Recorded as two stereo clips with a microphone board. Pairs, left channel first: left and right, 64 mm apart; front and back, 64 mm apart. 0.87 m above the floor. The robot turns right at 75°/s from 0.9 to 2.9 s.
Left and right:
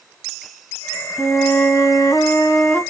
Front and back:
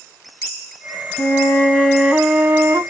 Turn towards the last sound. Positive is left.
turn(degrees=155)